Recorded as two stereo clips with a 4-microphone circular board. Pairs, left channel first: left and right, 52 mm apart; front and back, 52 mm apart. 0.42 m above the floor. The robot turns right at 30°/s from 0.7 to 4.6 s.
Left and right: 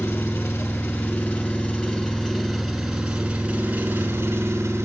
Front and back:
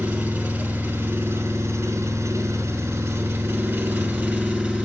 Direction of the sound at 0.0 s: 125° left.